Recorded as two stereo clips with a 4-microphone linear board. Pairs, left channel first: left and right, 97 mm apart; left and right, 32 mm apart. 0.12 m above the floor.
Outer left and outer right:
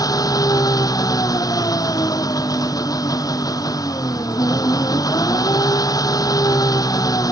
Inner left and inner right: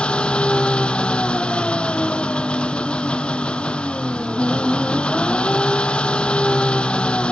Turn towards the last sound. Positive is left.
turn(degrees=35)  # may be behind; listen again after turning